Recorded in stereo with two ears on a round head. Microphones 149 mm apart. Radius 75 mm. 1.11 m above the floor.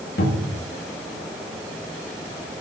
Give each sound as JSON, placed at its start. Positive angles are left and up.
{"t": 0.2, "sound": "a cupboard door", "side_deg": 70, "distance_m": 2.5}